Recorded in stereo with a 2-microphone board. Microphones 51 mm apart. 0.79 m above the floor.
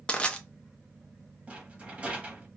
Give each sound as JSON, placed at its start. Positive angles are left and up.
{"t": 0.1, "sound": "crushing", "side_deg": 20, "distance_m": 0.6}
{"t": 1.5, "sound": "a rattle", "side_deg": -25, "distance_m": 1.0}